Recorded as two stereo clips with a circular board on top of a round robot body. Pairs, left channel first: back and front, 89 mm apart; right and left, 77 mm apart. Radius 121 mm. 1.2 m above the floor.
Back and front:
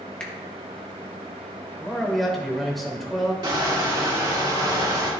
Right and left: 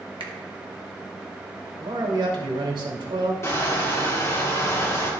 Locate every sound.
0.2 s a finger snap: 100° left, 1.1 m
1.8 s a man speaking: 90° left, 2.5 m
3.4 s crushing: 40° right, 2.5 m